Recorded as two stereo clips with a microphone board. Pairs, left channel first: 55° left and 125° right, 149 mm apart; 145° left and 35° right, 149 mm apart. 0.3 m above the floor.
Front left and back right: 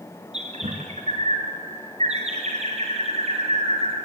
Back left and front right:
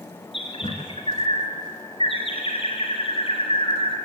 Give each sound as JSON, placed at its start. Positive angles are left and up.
{"t": 0.3, "sound": "a bird", "azimuth_deg": -165, "distance_m": 3.5}